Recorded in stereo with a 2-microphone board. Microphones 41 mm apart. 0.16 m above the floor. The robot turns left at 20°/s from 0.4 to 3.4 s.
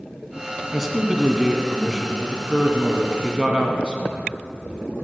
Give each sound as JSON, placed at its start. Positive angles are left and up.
{"t": 0.7, "sound": "a man speaking", "side_deg": 0, "distance_m": 1.2}